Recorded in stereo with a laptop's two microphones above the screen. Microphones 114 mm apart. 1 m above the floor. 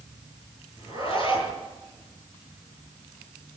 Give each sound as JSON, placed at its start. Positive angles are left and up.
{"t": 0.8, "sound": "a zipper", "side_deg": -40, "distance_m": 8.5}